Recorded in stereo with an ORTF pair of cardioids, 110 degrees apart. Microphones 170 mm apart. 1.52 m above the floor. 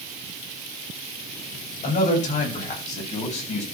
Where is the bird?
I don't hear a bird.